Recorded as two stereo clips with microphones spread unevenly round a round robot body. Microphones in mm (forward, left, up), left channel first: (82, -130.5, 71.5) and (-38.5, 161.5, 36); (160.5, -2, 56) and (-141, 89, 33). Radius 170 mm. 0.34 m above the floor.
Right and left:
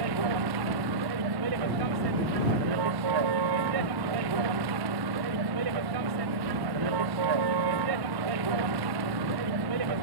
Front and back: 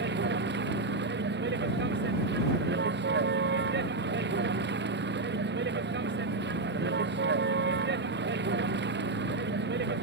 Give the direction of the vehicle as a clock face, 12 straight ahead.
8 o'clock.